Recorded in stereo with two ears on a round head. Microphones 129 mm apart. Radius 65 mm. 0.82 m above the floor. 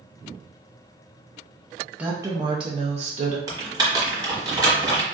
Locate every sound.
2.0 s a woman speaking: 10° right (ahead or behind), 0.5 m; by 3.4 s 50° right (ahead or behind), 0.9 m
3.5 s typing on a keyboard: 30° right (ahead or behind), 1.0 m